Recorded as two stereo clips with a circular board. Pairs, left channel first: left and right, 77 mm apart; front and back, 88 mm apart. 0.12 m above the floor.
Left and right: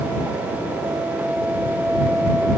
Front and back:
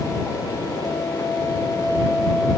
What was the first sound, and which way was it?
Only background noise.